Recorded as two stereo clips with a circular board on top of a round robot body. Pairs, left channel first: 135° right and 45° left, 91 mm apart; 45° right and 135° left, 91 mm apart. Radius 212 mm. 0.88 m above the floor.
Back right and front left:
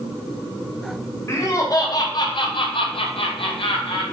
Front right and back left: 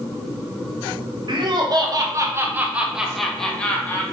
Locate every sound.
1.3 s laughter: 165° left, 1.4 m; by 4.0 s 110° right, 1.3 m